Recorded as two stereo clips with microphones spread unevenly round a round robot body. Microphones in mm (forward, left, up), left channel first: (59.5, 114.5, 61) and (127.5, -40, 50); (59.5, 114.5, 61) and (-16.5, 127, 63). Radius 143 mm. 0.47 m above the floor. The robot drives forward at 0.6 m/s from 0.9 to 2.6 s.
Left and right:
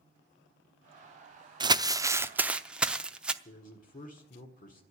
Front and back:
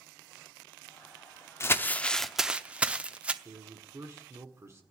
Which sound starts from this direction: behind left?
A man speaking, at 3.5 s.